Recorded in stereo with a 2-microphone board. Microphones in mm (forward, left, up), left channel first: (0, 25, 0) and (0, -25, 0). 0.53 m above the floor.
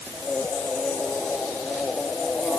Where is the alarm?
No alarm in this recording.